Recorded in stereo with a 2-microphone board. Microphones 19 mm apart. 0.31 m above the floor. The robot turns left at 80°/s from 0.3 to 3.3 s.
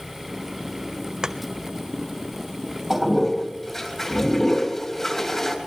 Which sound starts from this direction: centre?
A toilet flushing, at 2.9 s.